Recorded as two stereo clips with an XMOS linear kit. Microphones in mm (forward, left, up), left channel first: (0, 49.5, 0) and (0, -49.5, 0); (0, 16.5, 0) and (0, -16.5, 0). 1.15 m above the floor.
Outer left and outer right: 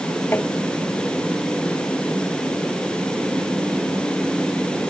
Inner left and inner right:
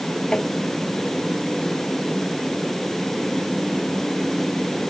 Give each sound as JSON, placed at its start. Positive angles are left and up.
{"t": 0.3, "sound": "tapping", "side_deg": 20}